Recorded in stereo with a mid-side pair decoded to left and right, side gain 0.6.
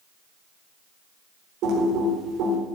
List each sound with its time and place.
1.6 s typing on a keyboard: 65° right, 4 m